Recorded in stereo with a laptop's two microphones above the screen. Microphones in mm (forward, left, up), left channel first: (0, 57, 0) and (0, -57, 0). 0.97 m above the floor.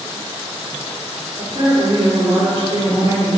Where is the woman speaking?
50° right (ahead or behind), 3.5 m.